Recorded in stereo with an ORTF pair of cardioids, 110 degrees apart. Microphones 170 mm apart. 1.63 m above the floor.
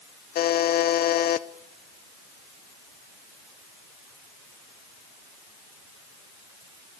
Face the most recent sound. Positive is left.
turn(degrees=65)